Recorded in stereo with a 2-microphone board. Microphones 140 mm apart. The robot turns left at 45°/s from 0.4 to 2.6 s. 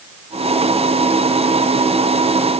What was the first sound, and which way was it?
Only background noise.